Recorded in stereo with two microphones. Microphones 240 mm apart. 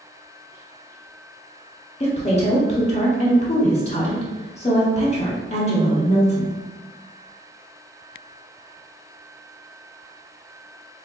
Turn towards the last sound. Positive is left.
turn(degrees=25)  # may be behind; listen again after turning